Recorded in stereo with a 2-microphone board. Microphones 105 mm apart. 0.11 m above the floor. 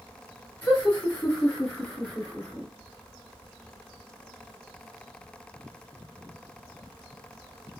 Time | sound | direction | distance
0.6 | laughter | 20° left (ahead or behind) | 1.8 m